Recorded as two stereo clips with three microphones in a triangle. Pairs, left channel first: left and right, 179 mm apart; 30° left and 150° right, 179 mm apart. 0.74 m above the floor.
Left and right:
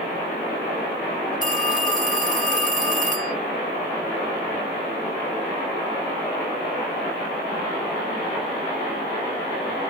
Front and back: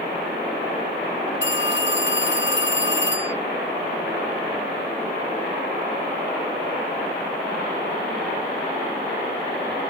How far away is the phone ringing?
About 2 m.